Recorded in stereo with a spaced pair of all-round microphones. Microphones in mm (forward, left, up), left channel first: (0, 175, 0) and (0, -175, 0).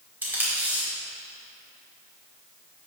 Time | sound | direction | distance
0.2 | tape being pulled | 5° right (ahead or behind) | 2.5 m